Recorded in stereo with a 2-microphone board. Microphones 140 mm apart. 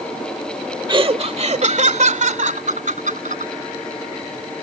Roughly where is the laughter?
Right.